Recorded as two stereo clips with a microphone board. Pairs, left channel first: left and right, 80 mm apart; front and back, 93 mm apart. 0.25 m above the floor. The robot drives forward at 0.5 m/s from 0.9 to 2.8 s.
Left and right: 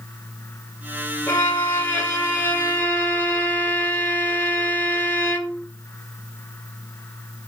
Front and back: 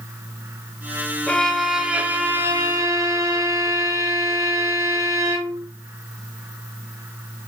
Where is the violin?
70° left, 0.7 m; by 5.7 s 145° left, 0.9 m.